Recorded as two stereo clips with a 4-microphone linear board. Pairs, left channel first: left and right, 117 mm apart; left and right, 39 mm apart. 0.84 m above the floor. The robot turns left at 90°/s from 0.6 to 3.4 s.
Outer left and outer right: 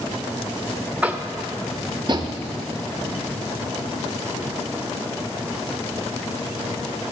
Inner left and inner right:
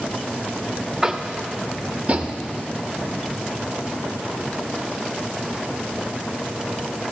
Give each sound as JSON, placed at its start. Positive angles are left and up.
{"t": 1.0, "sound": "tapping", "side_deg": -10, "distance_m": 0.6}